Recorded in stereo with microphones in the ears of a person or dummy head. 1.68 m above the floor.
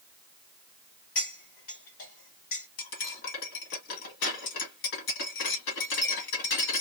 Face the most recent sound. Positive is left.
turn(degrees=60)  # may be behind; listen again after turning